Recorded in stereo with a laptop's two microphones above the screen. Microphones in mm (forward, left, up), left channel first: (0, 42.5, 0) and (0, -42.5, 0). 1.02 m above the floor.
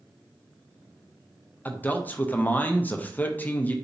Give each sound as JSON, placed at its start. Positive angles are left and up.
{"t": 1.6, "sound": "a man speaking", "side_deg": 20, "distance_m": 0.6}